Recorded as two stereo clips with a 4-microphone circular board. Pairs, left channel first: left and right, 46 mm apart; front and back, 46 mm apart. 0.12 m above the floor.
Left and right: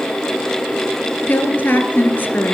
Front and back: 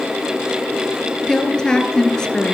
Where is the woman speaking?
70° left, 2 m.